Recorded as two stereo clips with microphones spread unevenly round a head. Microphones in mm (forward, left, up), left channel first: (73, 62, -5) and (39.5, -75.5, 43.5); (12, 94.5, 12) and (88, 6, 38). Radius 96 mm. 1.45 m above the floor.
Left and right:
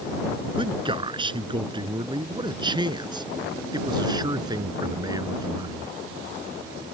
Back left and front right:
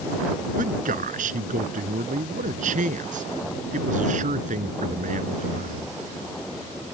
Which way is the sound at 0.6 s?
50° right.